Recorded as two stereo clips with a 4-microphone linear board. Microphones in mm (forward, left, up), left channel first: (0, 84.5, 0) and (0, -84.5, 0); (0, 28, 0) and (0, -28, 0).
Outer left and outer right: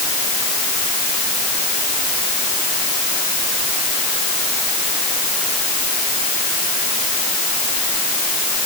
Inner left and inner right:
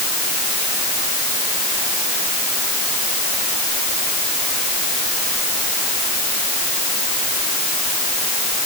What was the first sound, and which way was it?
Only background noise.